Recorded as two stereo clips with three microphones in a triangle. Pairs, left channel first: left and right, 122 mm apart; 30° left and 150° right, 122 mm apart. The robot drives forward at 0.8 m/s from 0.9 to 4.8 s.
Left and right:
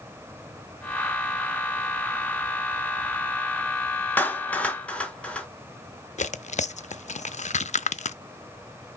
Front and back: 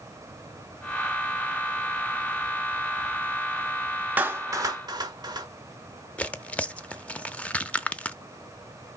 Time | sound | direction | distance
4.2 | a clap | 150° left | 0.9 m
6.2 | tearing paper | 110° left | 0.5 m